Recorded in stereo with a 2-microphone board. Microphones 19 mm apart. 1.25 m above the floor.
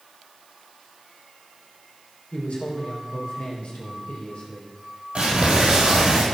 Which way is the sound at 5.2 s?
60° right (ahead or behind).